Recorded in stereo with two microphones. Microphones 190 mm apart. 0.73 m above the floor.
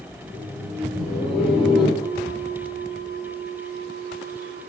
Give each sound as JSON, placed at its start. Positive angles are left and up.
{"t": 0.2, "sound": "laughter", "side_deg": 10, "distance_m": 5.5}
{"t": 2.0, "sound": "a bell", "side_deg": 25, "distance_m": 3.0}